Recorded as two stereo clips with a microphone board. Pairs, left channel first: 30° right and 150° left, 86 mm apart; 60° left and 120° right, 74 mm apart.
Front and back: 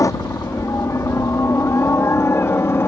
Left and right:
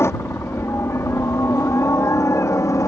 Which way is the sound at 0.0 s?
15° left.